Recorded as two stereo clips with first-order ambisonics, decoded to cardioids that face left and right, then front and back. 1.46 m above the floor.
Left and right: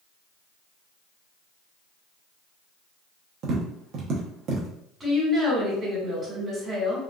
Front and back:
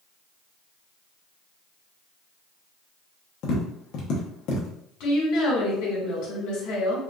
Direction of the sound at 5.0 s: 20° right.